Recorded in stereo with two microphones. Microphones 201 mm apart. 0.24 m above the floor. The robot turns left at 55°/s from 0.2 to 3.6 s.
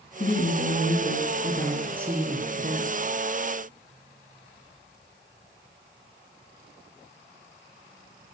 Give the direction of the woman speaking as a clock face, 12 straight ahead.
9 o'clock.